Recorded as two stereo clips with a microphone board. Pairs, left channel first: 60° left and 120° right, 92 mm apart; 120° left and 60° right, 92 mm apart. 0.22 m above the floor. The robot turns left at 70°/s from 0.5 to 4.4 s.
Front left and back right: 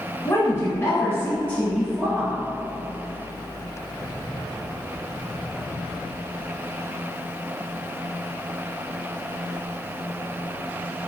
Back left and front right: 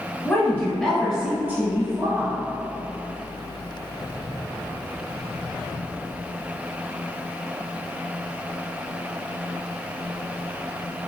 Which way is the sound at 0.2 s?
65° left.